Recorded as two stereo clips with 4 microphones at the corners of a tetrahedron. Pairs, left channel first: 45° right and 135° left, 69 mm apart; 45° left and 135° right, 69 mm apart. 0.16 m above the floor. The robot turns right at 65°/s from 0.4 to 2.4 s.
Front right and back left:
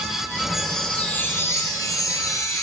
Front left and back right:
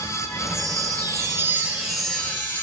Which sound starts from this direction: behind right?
A chime, at 0.5 s.